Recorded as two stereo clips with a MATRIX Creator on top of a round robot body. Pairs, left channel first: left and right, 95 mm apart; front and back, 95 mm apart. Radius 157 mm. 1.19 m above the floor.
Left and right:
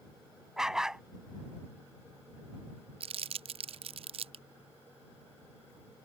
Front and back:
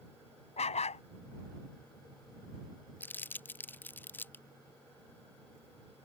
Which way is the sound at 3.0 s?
75° right.